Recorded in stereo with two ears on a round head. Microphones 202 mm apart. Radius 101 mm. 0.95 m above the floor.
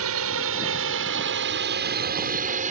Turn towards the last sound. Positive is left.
turn(degrees=-35)  # may be behind; listen again after turning